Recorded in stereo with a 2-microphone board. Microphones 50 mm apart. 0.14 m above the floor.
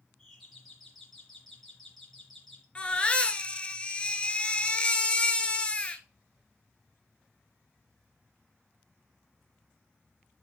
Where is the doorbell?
5° left (ahead or behind), 3 m.